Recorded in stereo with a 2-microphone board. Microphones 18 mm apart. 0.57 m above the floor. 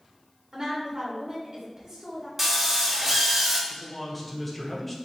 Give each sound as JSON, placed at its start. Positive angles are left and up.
{"t": 0.5, "sound": "a woman speaking", "side_deg": -40, "distance_m": 2.0}
{"t": 2.4, "sound": "a drill", "side_deg": -25, "distance_m": 0.9}
{"t": 3.7, "sound": "a man speaking", "side_deg": 15, "distance_m": 1.1}